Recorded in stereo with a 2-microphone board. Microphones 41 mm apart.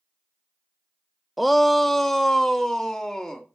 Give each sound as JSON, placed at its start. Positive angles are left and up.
{"t": 1.4, "sound": "a shout", "side_deg": 0, "distance_m": 0.6}